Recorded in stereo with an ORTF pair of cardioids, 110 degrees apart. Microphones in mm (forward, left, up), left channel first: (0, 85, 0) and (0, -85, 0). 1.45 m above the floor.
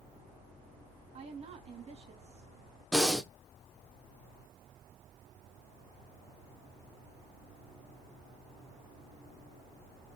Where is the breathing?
5° left, 0.9 m.